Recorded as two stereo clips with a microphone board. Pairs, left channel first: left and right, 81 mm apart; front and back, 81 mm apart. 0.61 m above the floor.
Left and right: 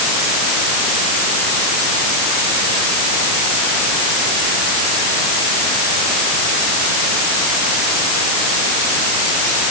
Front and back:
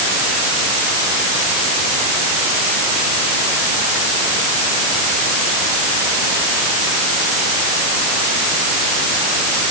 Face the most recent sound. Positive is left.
No sound to turn to.